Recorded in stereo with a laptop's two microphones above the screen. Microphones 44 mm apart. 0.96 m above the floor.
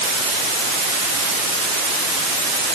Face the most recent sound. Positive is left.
No sound to turn to.